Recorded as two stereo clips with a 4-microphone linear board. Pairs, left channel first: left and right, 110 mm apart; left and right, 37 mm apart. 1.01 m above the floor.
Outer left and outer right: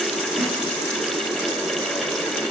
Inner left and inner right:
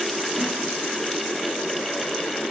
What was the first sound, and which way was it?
A snare drum, 30° right (ahead or behind).